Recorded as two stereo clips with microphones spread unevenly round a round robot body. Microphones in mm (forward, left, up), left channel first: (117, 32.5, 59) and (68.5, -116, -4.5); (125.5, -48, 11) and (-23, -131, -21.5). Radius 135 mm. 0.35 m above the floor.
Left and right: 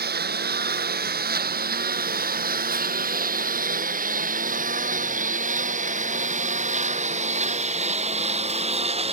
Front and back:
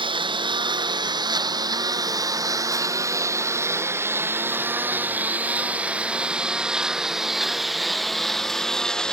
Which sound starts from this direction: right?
A lawn mower, at 0.0 s.